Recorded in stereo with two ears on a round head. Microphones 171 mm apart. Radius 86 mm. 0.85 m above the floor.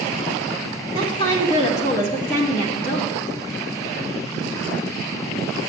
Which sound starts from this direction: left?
A woman speaking, at 0.9 s.